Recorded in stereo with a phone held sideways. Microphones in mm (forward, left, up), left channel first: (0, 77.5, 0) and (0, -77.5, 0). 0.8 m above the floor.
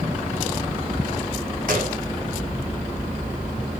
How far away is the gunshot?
About 3 m.